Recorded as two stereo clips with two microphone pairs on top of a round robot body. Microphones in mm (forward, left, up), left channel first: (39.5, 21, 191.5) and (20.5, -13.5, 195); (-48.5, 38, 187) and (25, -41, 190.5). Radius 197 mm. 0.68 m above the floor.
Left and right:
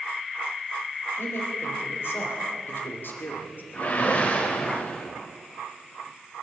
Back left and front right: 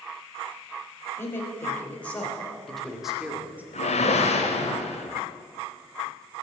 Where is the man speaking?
65° left, 4 m; by 3.6 s 30° left, 2.5 m.